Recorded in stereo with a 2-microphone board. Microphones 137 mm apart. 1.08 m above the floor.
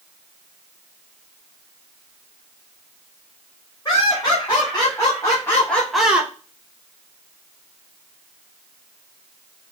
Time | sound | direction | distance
3.9 | laughter | 35° left (ahead or behind) | 2.5 m